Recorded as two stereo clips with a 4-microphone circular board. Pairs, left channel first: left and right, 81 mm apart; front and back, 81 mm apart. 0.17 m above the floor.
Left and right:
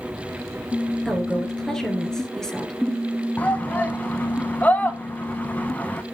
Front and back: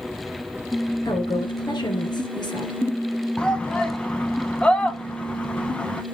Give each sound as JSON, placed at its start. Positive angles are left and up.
{"t": 1.1, "sound": "a woman speaking", "azimuth_deg": 5, "distance_m": 2.5}
{"t": 3.4, "sound": "a shout", "azimuth_deg": 55, "distance_m": 1.1}